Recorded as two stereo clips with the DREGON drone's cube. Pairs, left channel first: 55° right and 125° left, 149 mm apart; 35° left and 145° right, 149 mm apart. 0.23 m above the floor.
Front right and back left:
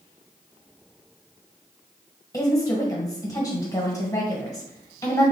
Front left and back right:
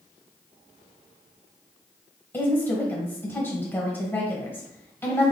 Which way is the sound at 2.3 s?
25° right.